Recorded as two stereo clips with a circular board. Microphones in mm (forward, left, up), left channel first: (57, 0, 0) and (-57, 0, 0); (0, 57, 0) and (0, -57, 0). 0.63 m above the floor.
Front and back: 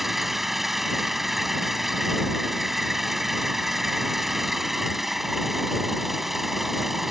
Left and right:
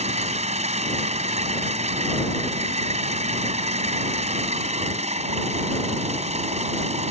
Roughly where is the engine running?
Right.